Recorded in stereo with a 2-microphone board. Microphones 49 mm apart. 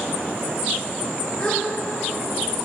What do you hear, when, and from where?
1.4 s a gasp: 20° left (ahead or behind), 2.5 m